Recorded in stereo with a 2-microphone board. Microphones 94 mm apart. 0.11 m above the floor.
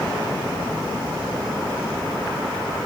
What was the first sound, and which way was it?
Only background noise.